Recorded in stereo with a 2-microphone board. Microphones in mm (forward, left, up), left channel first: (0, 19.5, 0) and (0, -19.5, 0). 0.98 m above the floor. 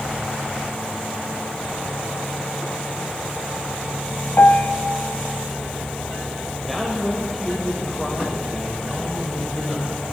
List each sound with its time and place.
4.4 s a piano: 65° left (ahead or behind), 0.7 m
6.7 s a man speaking: 5° left (ahead or behind), 3.5 m